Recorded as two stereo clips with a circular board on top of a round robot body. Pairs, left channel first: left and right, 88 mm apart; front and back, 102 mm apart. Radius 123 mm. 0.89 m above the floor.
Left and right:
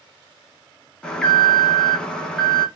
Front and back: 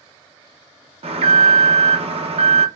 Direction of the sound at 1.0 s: 170° left.